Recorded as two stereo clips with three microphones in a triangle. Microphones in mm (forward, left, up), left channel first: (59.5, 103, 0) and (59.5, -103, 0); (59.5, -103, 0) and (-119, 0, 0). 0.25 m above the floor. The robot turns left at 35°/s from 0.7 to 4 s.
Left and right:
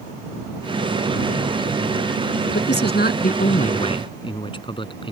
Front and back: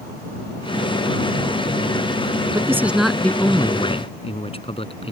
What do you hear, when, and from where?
2.5 s a man speaking: 80° left; by 5.1 s 30° left